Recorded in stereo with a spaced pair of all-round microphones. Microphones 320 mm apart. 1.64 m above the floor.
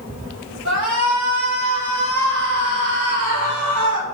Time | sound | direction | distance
0.7 | a shout | 65° right (ahead or behind) | 4.5 m